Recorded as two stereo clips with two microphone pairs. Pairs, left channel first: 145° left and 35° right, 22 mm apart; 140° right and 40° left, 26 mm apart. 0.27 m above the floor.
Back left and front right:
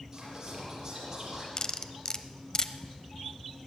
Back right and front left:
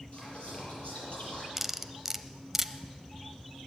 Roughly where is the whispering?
Right.